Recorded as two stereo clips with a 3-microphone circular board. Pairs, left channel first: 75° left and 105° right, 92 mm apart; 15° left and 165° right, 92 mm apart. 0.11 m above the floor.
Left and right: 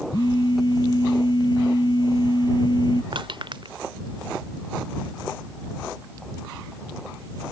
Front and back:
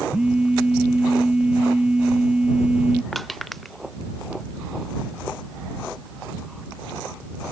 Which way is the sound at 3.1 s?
75° right.